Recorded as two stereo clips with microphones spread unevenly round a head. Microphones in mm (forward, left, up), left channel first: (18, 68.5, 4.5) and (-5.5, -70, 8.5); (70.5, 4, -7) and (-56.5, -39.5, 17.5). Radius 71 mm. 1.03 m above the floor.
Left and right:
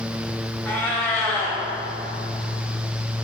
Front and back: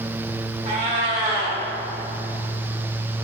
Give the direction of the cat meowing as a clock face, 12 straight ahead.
7 o'clock.